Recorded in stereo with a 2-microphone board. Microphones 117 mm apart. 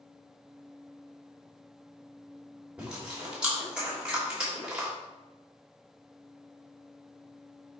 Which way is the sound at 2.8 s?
10° right (ahead or behind).